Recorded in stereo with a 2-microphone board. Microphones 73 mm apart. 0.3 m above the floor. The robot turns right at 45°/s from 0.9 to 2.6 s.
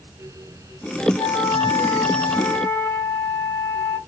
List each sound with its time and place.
1.2 s a flute: 90° left, 0.8 m; by 4.0 s 155° left, 0.8 m